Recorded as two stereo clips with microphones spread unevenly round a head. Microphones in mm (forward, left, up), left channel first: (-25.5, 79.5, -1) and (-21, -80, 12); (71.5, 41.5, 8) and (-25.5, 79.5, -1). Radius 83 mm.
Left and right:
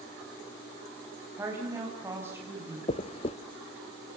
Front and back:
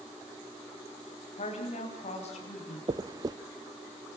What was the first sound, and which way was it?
A woman speaking, 10° right.